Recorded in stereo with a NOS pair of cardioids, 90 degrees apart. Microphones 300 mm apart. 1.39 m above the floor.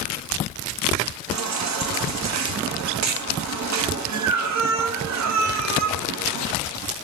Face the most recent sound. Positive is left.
turn(degrees=-55)